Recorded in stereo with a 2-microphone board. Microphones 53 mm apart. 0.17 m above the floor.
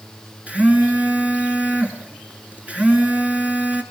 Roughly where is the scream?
I don't hear a scream.